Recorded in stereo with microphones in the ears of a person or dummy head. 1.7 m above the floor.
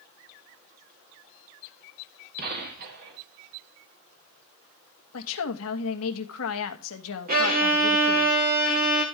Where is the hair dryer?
No hair dryer in this recording.